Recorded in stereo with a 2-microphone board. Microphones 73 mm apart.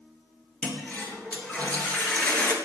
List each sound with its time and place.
0.6 s a toilet flushing: 20° left (ahead or behind), 3 m